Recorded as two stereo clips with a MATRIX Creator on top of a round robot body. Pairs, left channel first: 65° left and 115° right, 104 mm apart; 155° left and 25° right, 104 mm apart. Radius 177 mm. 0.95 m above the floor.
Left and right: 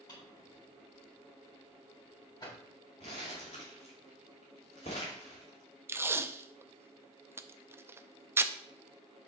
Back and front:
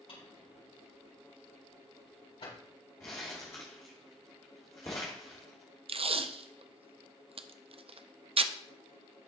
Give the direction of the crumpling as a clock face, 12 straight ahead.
9 o'clock.